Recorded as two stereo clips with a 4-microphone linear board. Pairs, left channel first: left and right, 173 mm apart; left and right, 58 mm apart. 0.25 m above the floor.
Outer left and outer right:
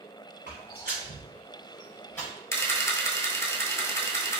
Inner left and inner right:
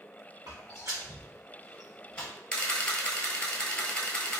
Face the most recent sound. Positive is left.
turn(degrees=15)  # may be behind; listen again after turning